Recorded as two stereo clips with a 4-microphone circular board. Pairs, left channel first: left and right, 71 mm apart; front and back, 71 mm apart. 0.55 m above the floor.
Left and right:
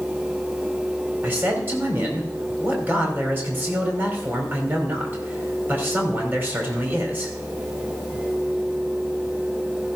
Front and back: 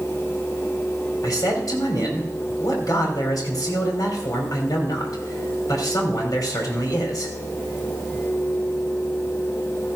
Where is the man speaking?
30° right, 3 m.